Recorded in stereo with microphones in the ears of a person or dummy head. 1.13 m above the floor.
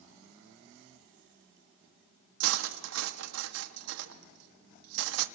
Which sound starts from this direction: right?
Cutlery clinking, at 2.4 s.